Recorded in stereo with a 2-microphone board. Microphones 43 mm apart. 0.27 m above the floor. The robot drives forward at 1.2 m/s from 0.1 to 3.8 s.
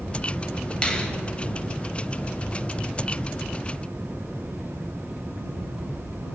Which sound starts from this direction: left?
A finger snap, at 0.8 s.